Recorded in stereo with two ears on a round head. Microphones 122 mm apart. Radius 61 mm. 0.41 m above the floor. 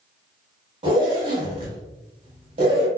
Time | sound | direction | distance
0.8 | a zipper | 40° right (ahead or behind) | 1.0 m